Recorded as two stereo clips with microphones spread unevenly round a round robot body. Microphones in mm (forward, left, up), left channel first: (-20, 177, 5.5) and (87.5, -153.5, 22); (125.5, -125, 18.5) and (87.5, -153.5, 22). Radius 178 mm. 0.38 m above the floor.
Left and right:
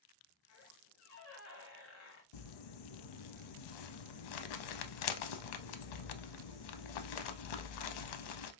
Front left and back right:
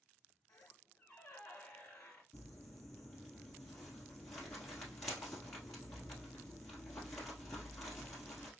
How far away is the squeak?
About 1.0 m.